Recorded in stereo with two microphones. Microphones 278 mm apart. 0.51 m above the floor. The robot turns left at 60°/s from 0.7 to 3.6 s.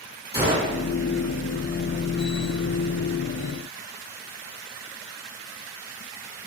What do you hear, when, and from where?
0.3 s a gunshot: 35° right (ahead or behind), 1.6 m